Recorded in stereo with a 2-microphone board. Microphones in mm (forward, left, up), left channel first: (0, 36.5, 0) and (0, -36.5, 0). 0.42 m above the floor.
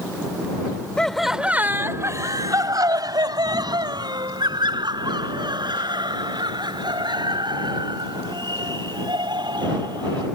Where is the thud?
I don't hear a thud.